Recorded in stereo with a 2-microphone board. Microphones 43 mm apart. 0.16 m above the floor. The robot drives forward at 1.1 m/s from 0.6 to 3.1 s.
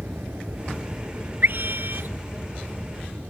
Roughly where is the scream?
Right.